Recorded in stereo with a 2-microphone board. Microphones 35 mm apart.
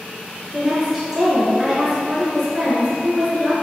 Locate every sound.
0.5 s a woman speaking: 5° right (ahead or behind), 1.3 m